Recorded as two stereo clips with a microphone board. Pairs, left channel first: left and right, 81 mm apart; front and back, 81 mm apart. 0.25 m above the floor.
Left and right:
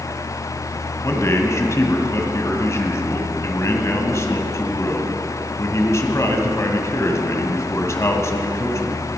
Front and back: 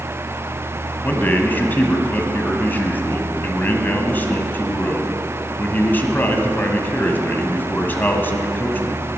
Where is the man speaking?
55° left, 1.5 m.